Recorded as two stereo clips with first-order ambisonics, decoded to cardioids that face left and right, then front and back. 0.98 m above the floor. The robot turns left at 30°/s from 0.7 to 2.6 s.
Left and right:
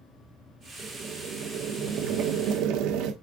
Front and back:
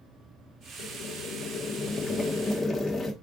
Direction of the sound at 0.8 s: 25° right.